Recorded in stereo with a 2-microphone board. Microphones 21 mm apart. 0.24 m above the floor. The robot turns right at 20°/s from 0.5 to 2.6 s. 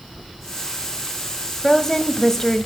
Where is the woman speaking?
20° left (ahead or behind), 1.5 m.